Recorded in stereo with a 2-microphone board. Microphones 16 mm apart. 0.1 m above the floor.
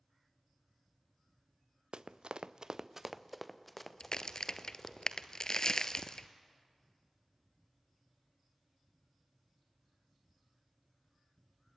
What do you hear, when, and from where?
1.9 s running footsteps: 80° right, 1.1 m; by 5.0 s 20° left (ahead or behind), 3 m
4.0 s a crack: 45° left (ahead or behind), 0.8 m